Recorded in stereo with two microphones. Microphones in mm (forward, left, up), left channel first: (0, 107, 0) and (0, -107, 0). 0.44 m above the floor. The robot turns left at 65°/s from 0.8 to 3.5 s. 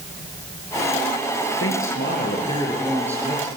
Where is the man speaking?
85° left, 7.5 m; by 3.5 s 35° right, 7.5 m.